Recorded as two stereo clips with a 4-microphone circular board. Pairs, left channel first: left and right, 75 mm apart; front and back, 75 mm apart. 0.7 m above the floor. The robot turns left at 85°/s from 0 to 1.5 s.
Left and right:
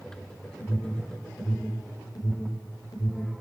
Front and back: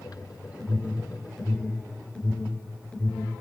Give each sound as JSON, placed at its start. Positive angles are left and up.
{"t": 0.6, "sound": "an alarm", "azimuth_deg": 155, "distance_m": 5.0}